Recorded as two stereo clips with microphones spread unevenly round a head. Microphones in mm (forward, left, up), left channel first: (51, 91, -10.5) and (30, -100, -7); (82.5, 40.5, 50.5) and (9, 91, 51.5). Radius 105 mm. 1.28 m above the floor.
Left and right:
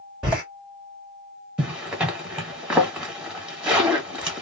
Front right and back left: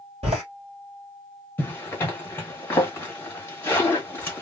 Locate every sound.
0.2 s a door slam: straight behind, 1.4 m
1.6 s a zipper: 25° right, 1.1 m